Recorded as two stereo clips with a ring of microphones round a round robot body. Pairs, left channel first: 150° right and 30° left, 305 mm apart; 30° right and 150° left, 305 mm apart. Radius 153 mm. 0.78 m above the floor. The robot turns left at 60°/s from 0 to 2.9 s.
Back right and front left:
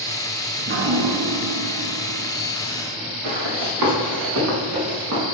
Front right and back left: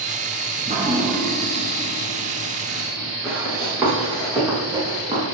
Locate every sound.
0.6 s dripping: 90° left, 1.3 m; by 3.1 s 50° right, 1.3 m
3.2 s running footsteps: 65° left, 4.5 m; by 5.2 s 75° left, 6.5 m